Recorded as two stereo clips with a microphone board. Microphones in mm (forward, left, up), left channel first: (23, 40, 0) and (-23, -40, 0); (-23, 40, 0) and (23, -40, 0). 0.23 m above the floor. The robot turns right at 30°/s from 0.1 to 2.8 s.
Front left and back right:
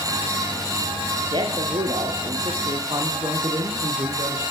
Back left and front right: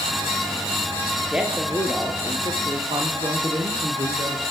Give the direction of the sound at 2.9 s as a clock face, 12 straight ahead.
3 o'clock.